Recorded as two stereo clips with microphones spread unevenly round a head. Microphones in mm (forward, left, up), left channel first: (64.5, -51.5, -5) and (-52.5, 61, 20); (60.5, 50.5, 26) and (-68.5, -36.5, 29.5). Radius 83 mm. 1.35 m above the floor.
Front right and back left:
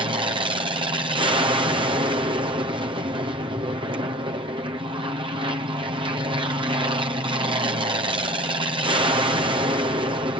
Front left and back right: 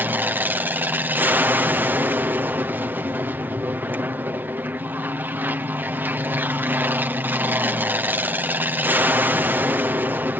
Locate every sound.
0.0 s an aircraft: 155° left